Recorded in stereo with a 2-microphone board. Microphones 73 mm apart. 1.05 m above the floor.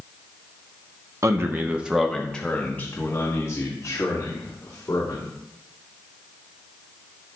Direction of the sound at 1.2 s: 40° right (ahead or behind).